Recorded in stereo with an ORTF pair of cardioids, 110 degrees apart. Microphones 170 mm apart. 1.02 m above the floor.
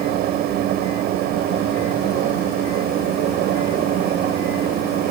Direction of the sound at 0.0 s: 70° right.